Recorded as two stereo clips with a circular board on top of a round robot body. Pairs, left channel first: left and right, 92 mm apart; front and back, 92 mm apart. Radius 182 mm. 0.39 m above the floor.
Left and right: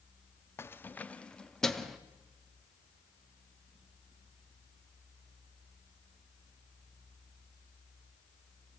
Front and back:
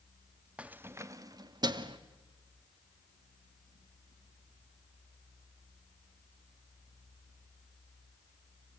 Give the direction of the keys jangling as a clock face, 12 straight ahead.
8 o'clock.